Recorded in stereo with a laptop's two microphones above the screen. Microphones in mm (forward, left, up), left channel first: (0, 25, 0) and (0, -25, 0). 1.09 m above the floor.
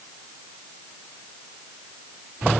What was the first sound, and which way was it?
Only background noise.